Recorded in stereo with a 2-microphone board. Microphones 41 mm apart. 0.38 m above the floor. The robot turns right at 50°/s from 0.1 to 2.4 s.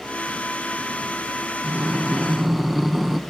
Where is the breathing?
40° right, 1.0 m; by 3.2 s 5° right, 1.0 m.